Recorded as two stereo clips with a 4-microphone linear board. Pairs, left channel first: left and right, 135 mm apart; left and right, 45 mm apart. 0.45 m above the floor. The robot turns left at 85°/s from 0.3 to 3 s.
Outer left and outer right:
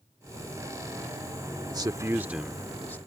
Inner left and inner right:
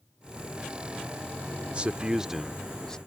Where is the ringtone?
I don't hear a ringtone.